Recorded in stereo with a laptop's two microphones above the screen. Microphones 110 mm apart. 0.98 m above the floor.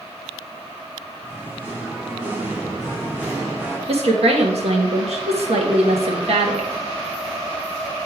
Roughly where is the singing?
Centre.